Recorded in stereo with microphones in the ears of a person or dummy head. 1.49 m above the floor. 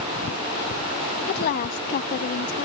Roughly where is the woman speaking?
Left.